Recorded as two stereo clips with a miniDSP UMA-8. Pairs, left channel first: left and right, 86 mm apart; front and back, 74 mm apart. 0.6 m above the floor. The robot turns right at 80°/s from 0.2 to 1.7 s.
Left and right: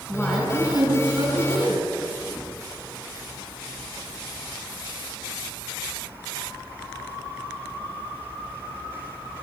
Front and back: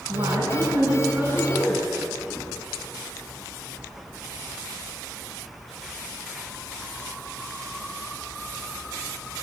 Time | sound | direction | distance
0.1 | a woman speaking | 165° left | 5.5 m